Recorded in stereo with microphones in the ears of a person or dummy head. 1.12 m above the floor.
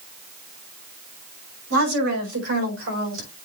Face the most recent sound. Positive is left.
turn(degrees=-70)  # may be behind; listen again after turning